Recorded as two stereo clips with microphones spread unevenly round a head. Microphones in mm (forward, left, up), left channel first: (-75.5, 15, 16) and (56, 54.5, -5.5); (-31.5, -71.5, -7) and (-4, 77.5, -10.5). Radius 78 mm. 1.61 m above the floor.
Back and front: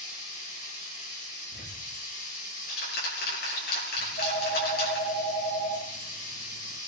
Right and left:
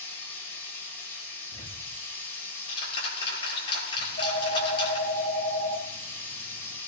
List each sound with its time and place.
0.0 s running water: 175° right, 6.5 m
1.5 s ticking: 160° right, 9 m
4.0 s a phone ringing: 130° right, 5.5 m